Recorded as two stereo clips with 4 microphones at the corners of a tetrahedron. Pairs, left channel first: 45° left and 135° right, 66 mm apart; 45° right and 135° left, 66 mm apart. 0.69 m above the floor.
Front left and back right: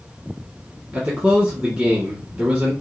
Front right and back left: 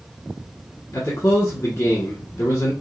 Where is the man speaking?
75° right, 1.2 m.